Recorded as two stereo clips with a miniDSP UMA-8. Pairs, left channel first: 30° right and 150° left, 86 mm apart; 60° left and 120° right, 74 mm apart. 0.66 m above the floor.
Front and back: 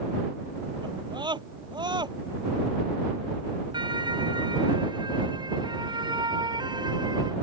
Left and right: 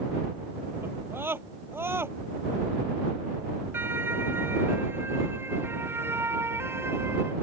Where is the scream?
Straight behind.